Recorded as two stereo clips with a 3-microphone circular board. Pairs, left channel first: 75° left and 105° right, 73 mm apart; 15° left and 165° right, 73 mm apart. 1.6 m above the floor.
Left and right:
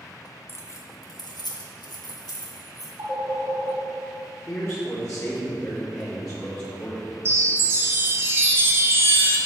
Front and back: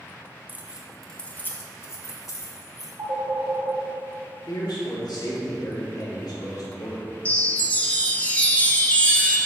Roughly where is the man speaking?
Ahead left.